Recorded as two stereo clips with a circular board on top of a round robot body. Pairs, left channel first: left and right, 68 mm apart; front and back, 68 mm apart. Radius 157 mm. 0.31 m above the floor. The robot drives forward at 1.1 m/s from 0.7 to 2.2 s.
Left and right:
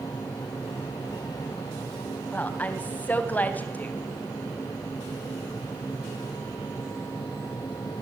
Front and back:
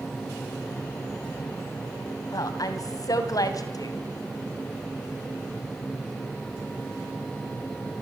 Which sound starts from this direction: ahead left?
A woman speaking, at 2.3 s.